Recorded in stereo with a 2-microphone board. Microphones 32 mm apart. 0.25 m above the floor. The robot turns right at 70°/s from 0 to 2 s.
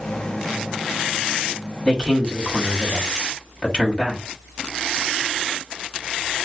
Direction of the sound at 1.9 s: 30° left (ahead or behind).